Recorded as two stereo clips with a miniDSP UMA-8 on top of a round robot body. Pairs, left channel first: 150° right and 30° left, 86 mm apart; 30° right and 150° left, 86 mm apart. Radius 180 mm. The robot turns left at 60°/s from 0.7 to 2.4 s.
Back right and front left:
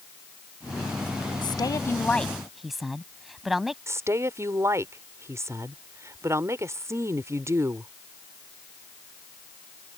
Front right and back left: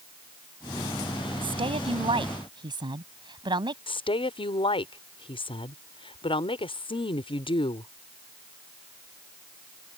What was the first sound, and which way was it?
A woman speaking, 175° left.